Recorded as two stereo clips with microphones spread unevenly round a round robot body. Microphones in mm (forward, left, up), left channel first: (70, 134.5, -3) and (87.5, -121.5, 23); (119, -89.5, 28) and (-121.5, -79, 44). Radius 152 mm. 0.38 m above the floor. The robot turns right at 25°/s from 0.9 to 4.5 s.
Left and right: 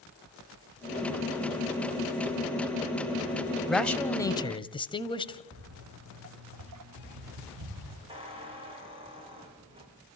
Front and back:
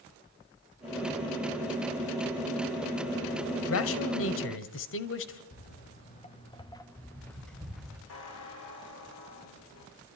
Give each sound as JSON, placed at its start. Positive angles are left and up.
{"t": 3.7, "sound": "a man speaking", "azimuth_deg": 5, "distance_m": 1.6}
{"t": 5.5, "sound": "footsteps", "azimuth_deg": -50, "distance_m": 2.5}
{"t": 8.1, "sound": "a squeak", "azimuth_deg": -15, "distance_m": 7.5}